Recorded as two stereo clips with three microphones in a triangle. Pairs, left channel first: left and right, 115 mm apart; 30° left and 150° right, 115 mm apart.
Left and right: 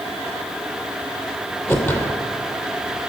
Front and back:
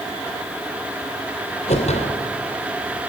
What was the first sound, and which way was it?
A whoosh, 20° left.